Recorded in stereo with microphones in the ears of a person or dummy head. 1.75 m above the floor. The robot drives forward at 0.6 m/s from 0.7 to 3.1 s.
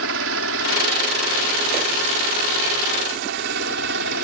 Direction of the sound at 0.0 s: 75° right (ahead or behind).